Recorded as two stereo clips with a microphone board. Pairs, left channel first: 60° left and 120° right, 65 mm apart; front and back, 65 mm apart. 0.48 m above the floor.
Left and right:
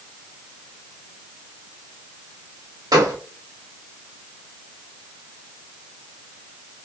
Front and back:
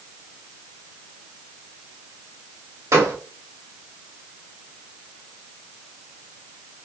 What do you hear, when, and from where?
2.9 s a gunshot: 135° right, 0.8 m